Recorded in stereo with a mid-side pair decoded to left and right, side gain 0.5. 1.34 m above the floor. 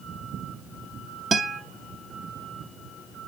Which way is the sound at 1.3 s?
35° right.